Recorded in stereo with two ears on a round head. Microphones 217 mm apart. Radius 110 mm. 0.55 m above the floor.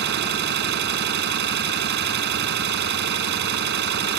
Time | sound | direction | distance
0.0 | an engine running | 45° right (ahead or behind) | ?